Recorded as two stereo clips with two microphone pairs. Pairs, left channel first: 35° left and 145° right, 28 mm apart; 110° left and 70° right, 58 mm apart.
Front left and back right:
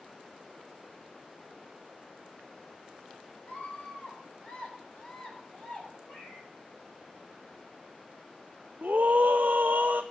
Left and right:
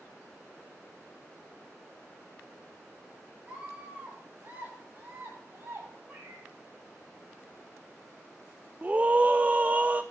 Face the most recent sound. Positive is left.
turn(degrees=-135)